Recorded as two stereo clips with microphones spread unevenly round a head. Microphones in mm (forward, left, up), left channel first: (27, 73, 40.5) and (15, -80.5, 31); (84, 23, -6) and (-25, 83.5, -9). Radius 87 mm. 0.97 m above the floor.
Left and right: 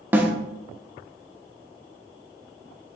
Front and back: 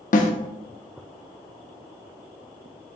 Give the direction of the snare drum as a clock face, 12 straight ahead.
12 o'clock.